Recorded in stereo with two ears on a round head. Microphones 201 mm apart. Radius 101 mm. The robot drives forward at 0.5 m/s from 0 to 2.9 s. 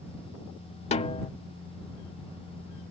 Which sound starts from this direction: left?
A snare drum, at 0.9 s.